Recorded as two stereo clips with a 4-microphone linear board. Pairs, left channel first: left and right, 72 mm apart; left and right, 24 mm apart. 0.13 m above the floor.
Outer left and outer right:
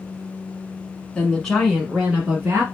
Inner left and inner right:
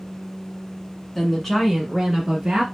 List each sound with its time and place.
1.1 s a woman speaking: 15° left (ahead or behind), 1.2 m; by 2.6 s 30° right (ahead or behind), 1.4 m